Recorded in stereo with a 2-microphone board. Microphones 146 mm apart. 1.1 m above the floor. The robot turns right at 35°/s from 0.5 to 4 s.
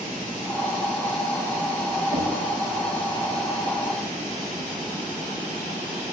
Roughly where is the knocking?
Right.